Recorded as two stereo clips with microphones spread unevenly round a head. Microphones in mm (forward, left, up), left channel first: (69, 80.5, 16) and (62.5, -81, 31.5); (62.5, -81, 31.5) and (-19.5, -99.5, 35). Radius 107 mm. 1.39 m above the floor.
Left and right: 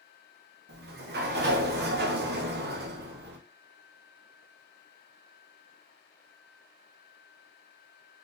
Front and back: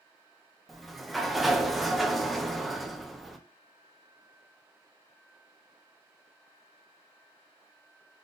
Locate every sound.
0.7 s a sliding door: 80° right, 0.7 m